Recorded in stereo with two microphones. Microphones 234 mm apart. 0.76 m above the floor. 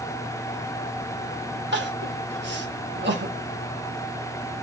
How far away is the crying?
About 0.8 m.